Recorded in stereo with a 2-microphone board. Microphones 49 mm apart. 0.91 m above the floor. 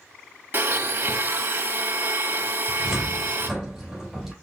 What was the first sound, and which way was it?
A blender, 45° right (ahead or behind).